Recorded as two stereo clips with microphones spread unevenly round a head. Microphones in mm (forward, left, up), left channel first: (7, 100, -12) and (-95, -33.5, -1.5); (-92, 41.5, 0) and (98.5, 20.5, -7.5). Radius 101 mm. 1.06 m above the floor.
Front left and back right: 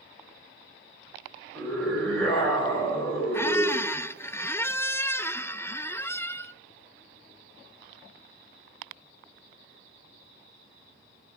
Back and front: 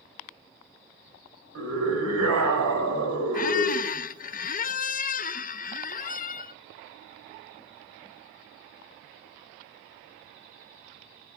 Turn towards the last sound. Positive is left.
turn(degrees=130)